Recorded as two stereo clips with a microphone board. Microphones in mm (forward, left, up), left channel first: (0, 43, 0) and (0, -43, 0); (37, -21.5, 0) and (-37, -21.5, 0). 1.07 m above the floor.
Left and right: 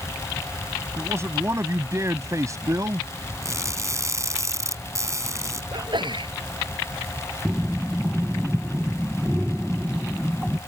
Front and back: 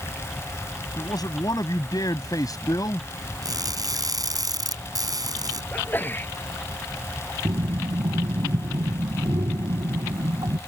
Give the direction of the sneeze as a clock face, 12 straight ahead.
2 o'clock.